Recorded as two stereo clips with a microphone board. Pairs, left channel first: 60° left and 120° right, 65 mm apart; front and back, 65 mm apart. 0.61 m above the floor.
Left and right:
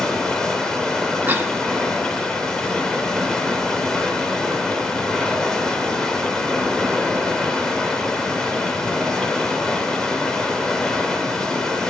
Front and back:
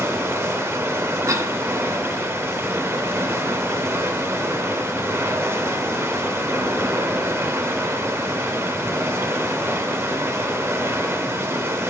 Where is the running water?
140° left, 2.0 m.